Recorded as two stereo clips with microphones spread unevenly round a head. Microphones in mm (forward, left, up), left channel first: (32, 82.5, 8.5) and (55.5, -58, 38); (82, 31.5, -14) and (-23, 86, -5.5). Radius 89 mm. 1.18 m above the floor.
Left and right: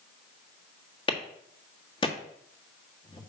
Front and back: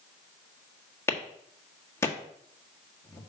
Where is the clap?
40° left, 1.6 m.